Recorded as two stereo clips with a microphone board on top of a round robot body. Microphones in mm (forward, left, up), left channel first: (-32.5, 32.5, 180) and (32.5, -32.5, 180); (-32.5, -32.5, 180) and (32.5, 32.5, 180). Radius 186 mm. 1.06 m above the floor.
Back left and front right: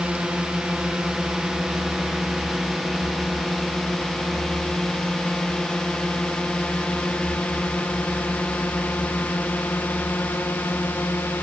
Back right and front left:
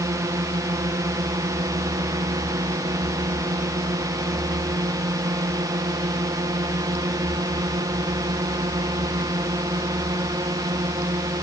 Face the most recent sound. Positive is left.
turn(degrees=75)